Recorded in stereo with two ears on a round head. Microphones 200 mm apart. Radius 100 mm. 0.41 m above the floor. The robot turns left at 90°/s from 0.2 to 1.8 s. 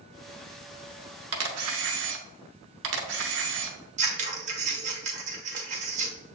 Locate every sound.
1.3 s a camera shutter: 75° right, 0.8 m; by 3.8 s 115° right, 0.8 m
4.0 s scissors: 35° right (ahead or behind), 1.1 m